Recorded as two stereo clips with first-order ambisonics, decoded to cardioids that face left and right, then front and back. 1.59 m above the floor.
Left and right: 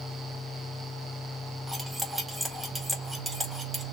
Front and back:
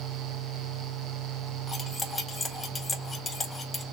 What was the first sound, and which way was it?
Cutlery clinking, 30° right.